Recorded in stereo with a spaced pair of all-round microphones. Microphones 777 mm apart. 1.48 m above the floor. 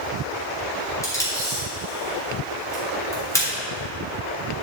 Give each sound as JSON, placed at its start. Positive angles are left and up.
{"t": 1.0, "sound": "tape being pulled", "side_deg": 5, "distance_m": 3.5}